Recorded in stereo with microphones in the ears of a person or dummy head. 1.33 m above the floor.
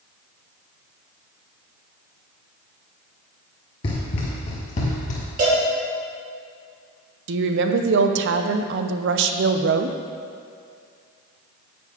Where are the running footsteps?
20° left (ahead or behind), 1.4 m; by 5.2 s 40° left (ahead or behind), 2 m.